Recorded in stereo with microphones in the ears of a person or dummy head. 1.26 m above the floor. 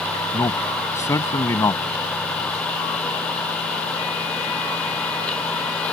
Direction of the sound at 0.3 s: 15° left (ahead or behind).